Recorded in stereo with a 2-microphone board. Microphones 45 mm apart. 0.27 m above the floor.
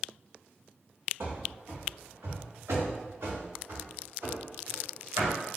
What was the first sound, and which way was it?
Running footsteps, 70° right (ahead or behind).